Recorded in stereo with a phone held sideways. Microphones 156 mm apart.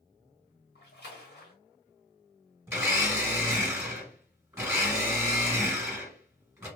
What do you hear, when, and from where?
0.8 s a splash: 80° left, 1.4 m
2.7 s a blender: 15° right (ahead or behind), 1.5 m